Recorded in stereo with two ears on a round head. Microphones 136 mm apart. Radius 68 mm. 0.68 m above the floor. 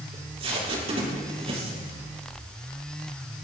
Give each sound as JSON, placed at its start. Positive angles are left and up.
{"t": 0.1, "sound": "tape being pulled", "side_deg": -40, "distance_m": 6.5}